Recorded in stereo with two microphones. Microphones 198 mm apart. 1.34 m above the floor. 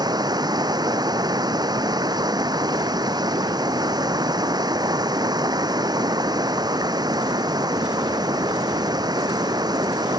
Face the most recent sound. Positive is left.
turn(degrees=-20)  # may be behind; listen again after turning